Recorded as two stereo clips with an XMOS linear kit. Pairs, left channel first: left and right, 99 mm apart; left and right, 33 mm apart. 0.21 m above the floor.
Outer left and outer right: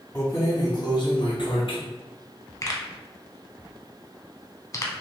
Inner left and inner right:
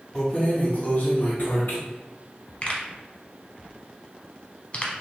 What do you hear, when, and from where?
0.1 s keys jangling: 25° left (ahead or behind), 0.7 m; by 1.8 s 60° left (ahead or behind), 1.4 m
2.6 s a pop: 35° left (ahead or behind), 0.7 m